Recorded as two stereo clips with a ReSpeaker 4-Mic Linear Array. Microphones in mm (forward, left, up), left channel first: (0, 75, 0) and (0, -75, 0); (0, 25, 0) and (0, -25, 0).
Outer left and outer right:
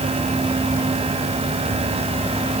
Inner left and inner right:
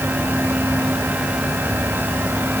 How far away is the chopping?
No chopping in this recording.